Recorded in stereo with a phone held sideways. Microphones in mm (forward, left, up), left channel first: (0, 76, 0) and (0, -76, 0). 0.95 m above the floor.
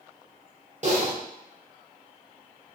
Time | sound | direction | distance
0.8 | typing on a keyboard | 50° right (ahead or behind) | 0.7 m